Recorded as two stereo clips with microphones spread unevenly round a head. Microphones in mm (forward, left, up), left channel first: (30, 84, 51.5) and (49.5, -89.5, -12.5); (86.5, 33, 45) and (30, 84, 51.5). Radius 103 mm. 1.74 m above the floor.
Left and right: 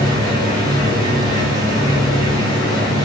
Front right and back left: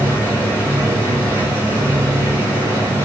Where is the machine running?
170° right, 4 m.